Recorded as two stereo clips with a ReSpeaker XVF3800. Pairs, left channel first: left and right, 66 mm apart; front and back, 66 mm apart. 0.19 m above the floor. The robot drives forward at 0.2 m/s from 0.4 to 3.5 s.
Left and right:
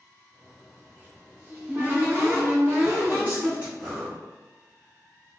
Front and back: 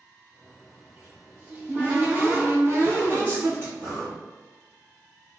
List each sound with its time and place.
0.8 s a cupboard door: 115° right, 1.0 m; by 3.7 s 145° right, 1.2 m
3.8 s breathing: 160° right, 1.5 m